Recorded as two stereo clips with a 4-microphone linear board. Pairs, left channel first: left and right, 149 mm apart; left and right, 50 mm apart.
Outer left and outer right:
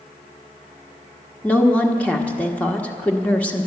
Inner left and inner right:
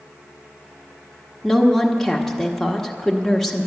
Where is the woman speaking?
10° left (ahead or behind), 1.1 m.